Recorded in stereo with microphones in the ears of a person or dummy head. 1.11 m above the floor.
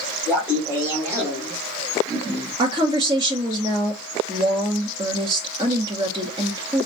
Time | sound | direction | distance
0.3 | laughter | 15° left (ahead or behind) | 2.5 m
2.6 | a woman speaking | 25° right (ahead or behind) | 0.8 m